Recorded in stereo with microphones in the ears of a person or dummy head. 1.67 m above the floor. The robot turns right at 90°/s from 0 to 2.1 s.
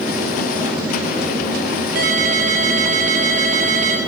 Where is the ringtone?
50° right (ahead or behind), 2.5 m; by 4.0 s 40° right (ahead or behind), 2.5 m.